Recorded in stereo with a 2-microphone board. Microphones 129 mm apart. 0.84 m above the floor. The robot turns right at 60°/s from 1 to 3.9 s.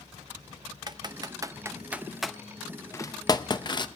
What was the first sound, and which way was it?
Typing on a keyboard, 35° right (ahead or behind).